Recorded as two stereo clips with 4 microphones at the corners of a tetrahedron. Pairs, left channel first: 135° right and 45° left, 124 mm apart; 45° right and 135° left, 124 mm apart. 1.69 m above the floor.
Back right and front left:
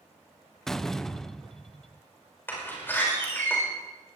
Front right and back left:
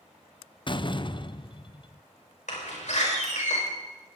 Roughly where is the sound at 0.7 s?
Ahead right.